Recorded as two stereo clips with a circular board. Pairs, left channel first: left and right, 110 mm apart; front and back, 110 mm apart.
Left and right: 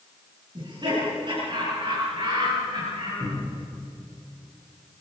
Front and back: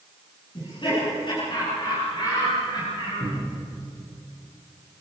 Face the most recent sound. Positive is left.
turn(degrees=-35)